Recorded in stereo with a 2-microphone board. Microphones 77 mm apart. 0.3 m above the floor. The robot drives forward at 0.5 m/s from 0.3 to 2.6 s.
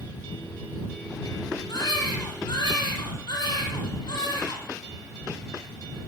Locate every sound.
1.7 s a baby crying: 55° left (ahead or behind), 6 m; by 4.6 s 60° left (ahead or behind), 5.5 m